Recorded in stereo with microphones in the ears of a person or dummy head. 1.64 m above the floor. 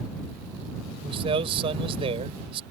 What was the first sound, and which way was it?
A man speaking, 30° right (ahead or behind).